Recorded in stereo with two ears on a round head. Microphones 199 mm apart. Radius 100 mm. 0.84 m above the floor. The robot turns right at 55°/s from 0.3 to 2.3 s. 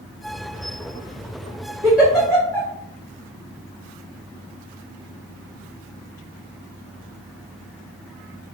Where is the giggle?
15° right (ahead or behind), 1.6 m; by 2.7 s 10° left (ahead or behind), 1.6 m.